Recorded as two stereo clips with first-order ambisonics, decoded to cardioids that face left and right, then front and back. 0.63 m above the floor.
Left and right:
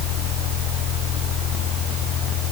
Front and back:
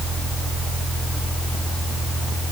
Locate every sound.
Only background noise.